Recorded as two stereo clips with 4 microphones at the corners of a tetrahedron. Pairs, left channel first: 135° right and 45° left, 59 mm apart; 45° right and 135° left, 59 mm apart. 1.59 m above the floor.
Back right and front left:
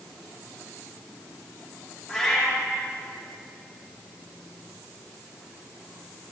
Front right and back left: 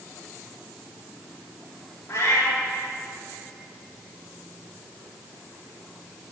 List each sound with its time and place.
2.1 s a cat meowing: 50° right, 1.7 m